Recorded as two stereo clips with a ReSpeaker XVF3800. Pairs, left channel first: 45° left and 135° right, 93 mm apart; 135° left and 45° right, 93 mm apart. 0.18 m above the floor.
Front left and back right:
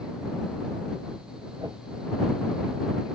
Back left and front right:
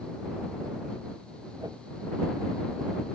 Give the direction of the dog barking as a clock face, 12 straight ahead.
No dog barking in this recording.